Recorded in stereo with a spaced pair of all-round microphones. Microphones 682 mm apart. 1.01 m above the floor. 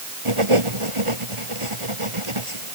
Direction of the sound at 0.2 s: 45° right (ahead or behind).